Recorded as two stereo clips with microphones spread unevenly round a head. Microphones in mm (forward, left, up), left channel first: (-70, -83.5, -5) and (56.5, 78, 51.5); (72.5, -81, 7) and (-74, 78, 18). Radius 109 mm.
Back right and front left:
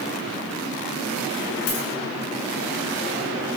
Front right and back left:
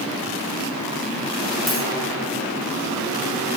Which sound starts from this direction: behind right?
A dropped coin, at 1.7 s.